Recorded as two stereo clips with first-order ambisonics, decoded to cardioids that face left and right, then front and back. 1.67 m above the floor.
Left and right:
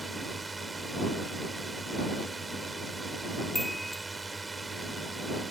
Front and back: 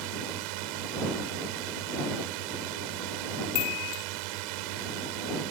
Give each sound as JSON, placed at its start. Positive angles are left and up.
{"t": 0.0, "sound": "a drone", "azimuth_deg": -170}
{"t": 3.5, "sound": "a chime", "azimuth_deg": 0}